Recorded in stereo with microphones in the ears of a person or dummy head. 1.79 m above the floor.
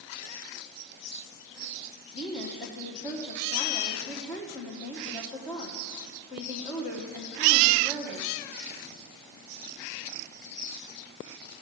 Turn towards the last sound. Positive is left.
turn(degrees=15)  # may be behind; listen again after turning